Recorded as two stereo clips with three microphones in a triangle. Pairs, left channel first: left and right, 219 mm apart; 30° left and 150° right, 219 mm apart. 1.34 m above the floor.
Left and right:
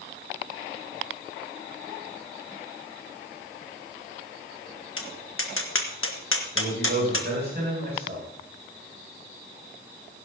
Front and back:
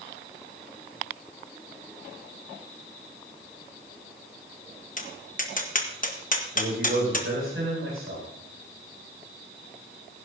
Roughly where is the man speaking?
Behind right.